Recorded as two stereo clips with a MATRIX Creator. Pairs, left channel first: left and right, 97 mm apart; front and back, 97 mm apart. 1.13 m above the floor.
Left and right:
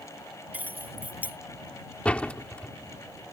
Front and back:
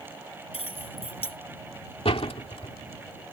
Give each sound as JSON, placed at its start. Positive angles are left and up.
{"t": 0.5, "sound": "keys jangling", "azimuth_deg": -15}
{"t": 2.0, "sound": "a door slam", "azimuth_deg": 15}